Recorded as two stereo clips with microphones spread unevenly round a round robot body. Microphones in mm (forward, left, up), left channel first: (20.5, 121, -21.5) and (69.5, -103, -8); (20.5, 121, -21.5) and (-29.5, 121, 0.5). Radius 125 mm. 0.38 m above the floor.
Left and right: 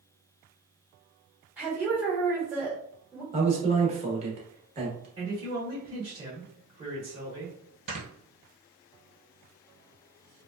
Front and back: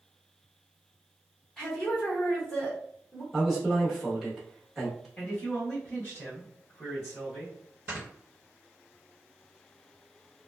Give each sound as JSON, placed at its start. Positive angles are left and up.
{"t": 1.6, "sound": "a woman speaking", "azimuth_deg": 5, "distance_m": 1.2}
{"t": 3.3, "sound": "a man speaking", "azimuth_deg": -50, "distance_m": 0.9}
{"t": 5.2, "sound": "a man speaking", "azimuth_deg": -20, "distance_m": 1.0}
{"t": 7.9, "sound": "snoring", "azimuth_deg": -130, "distance_m": 1.1}